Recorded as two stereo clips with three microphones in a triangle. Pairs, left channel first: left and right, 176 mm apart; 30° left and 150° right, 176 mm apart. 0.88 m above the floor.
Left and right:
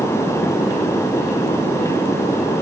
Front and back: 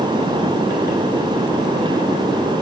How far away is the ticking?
No ticking in this recording.